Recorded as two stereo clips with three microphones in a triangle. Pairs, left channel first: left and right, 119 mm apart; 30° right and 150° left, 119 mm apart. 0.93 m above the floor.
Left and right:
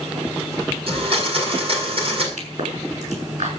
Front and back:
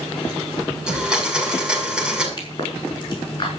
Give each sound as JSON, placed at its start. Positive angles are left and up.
{"t": 0.9, "sound": "a blender", "azimuth_deg": -125, "distance_m": 6.5}
{"t": 2.4, "sound": "a pop", "azimuth_deg": -80, "distance_m": 6.0}